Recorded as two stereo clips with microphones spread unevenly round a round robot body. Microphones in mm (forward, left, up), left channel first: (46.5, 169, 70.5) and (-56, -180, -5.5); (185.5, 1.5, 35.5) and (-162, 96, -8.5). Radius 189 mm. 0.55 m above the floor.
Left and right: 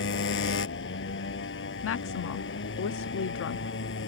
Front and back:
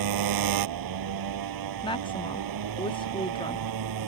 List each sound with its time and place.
0.0 s a motorcycle: 135° left
1.8 s a woman speaking: 60° left